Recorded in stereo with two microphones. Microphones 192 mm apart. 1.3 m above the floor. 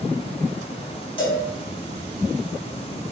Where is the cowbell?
25° left (ahead or behind), 1.7 m.